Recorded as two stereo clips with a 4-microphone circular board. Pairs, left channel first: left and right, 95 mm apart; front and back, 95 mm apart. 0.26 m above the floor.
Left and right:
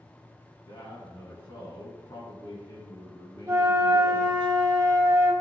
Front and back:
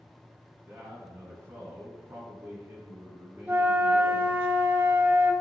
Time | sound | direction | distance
0.5 | a man speaking | 125° left | 2.5 m
3.5 | a flute | 125° right | 1.1 m